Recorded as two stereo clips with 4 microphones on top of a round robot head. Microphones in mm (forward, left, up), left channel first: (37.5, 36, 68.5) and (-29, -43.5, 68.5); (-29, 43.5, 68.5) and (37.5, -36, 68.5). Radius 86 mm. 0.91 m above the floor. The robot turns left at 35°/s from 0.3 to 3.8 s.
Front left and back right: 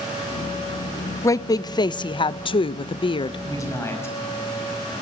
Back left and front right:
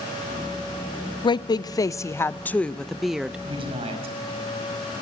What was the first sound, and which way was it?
A woman speaking, 105° left.